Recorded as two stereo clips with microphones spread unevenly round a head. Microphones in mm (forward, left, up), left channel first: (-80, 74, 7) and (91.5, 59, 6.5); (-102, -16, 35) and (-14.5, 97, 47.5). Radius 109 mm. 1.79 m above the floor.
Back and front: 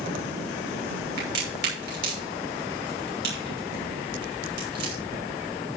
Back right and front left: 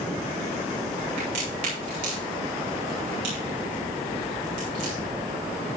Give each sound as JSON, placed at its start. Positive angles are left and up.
{"t": 1.2, "sound": "a crack", "azimuth_deg": 0, "distance_m": 6.5}